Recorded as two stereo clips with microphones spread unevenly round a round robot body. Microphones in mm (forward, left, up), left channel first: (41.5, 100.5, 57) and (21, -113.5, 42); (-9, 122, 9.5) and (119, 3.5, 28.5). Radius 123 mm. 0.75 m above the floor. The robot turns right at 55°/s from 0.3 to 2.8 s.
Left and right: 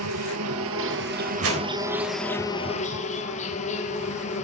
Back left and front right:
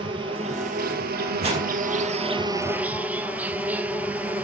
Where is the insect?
105° right, 1.2 m; by 4.5 s 35° left, 1.2 m.